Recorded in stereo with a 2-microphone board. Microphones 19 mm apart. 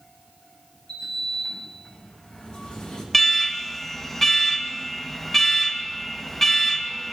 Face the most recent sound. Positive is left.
turn(degrees=10)  # may be behind; listen again after turning